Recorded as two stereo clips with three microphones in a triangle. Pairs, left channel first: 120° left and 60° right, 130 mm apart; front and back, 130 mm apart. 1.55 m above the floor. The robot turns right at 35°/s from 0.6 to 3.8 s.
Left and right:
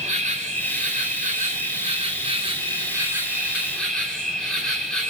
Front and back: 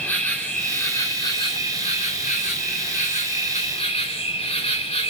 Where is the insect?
80° right, 4.5 m; by 5.1 s 35° left, 4.5 m.